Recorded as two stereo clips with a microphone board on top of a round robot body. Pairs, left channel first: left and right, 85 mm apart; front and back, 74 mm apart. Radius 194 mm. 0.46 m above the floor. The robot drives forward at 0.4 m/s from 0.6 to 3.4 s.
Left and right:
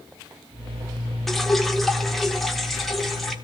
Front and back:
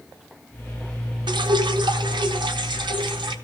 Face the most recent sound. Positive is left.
turn(degrees=180)